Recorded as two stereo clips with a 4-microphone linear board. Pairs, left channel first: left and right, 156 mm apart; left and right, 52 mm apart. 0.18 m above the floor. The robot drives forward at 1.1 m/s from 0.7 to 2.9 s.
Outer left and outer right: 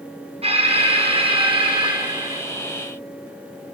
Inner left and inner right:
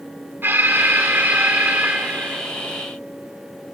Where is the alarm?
40° right (ahead or behind), 2.5 m; by 2.4 s 30° right (ahead or behind), 3.5 m.